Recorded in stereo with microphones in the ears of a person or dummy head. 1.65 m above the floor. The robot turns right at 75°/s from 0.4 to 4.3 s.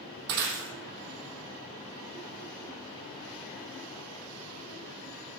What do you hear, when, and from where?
0.3 s breaking glass: 65° right (ahead or behind), 4 m; by 0.7 s 55° right (ahead or behind), 4 m